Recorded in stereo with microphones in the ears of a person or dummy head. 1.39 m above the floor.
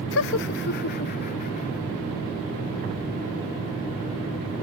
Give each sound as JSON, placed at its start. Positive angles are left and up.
{"t": 0.1, "sound": "laughter", "side_deg": 65}